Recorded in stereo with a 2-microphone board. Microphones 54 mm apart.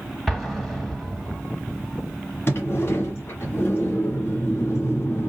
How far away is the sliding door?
About 1.5 m.